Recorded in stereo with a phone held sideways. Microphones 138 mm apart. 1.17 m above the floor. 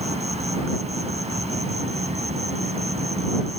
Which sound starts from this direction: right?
An insect, at 0.0 s.